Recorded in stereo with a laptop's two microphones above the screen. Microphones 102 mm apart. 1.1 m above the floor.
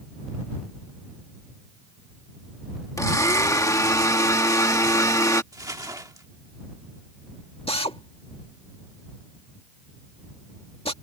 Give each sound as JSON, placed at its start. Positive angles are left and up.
{"t": 3.0, "sound": "a blender", "side_deg": 35}
{"t": 5.5, "sound": "crumpling", "side_deg": -35}
{"t": 7.7, "sound": "a drill", "side_deg": 75}